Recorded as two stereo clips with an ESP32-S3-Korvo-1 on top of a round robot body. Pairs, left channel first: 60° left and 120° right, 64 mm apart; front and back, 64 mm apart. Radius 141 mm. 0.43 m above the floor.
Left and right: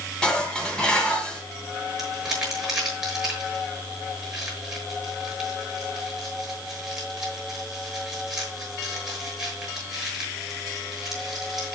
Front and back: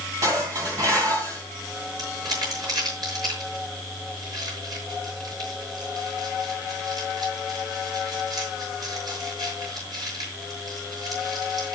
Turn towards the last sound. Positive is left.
turn(degrees=155)